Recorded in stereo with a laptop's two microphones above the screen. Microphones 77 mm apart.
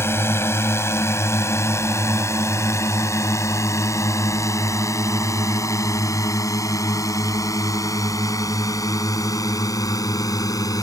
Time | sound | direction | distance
0.0 | a drone | 35° left (ahead or behind) | ?